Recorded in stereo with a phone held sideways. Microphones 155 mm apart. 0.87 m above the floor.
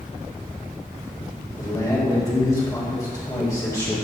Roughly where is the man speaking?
Left.